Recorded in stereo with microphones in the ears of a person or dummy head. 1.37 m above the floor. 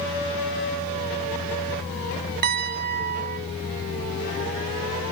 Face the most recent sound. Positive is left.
turn(degrees=-45)  # may be behind; listen again after turning